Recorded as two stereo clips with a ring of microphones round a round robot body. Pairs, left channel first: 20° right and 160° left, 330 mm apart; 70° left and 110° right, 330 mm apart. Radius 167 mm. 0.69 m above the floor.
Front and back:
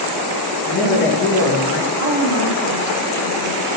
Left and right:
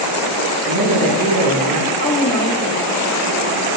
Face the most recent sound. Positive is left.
turn(degrees=125)